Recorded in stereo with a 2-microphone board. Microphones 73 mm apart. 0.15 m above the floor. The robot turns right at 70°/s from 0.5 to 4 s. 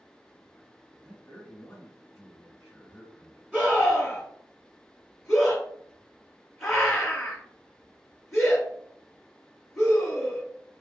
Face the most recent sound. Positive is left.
turn(degrees=10)  # may be behind; listen again after turning